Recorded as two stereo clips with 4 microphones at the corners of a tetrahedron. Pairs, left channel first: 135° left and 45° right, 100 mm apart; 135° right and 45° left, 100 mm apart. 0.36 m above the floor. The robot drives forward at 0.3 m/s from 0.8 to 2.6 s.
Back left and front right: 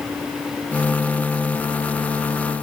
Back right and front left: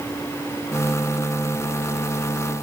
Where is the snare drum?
I don't hear a snare drum.